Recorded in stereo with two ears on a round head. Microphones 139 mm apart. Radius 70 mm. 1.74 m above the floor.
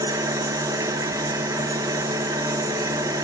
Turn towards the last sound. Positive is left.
turn(degrees=-20)  # may be behind; listen again after turning